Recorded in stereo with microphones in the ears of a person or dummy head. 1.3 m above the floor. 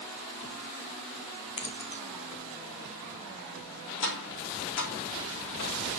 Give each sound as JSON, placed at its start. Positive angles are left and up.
{"t": 1.6, "sound": "keys jangling", "side_deg": 30, "distance_m": 1.5}
{"t": 4.0, "sound": "tapping", "side_deg": 75, "distance_m": 3.0}